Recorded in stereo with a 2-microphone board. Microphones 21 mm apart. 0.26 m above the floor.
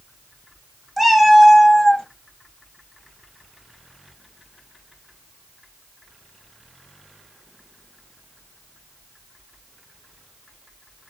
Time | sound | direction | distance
1.0 | a cat meowing | 5° right (ahead or behind) | 0.6 m